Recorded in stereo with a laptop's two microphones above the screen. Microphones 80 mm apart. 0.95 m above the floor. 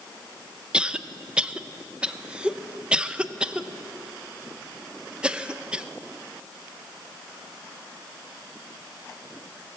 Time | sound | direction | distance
0.7 | a cough | 10° right (ahead or behind) | 0.7 m